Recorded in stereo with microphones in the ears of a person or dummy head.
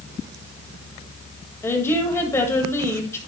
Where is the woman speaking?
10° left (ahead or behind), 1.8 m.